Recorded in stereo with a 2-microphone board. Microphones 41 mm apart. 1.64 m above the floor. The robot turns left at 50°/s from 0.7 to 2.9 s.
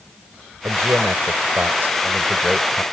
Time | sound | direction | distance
0.6 | a man speaking | 70° right | ?